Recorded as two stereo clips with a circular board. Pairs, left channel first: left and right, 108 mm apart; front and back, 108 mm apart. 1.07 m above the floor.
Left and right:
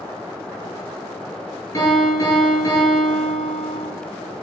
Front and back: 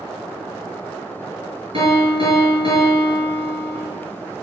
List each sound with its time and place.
1.7 s a piano: 150° left, 5 m